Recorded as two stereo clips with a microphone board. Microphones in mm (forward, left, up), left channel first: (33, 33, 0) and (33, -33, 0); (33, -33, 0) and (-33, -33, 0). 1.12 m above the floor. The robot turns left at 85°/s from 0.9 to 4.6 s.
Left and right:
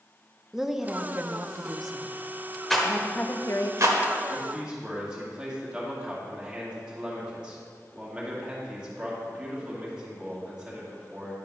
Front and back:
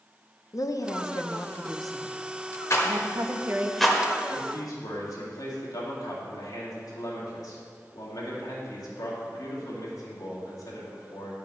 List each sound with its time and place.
0.5 s a woman speaking: 10° right, 0.6 m; by 3.7 s 115° left, 0.6 m
2.7 s a rattle: 5° left, 1.1 m; by 4.0 s 100° right, 1.1 m
4.3 s a man speaking: 10° left, 2.5 m; by 11.3 s 15° right, 2.5 m